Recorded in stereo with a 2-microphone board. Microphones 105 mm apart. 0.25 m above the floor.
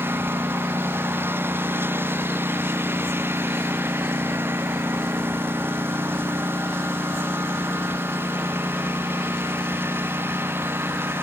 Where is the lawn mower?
20° right (ahead or behind).